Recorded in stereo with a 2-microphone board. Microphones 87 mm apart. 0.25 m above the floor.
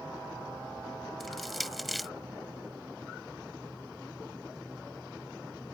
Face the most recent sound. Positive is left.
turn(degrees=0)  # may be behind; listen again after turning